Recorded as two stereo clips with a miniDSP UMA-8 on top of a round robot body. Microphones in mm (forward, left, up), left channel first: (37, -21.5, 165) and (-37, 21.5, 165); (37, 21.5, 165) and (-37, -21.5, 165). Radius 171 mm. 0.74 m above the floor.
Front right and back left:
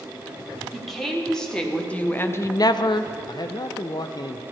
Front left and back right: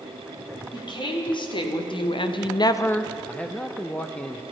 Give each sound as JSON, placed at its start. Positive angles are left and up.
{"t": 0.7, "sound": "a woman speaking", "azimuth_deg": 60, "distance_m": 2.5}
{"t": 3.3, "sound": "a man speaking", "azimuth_deg": -40, "distance_m": 0.6}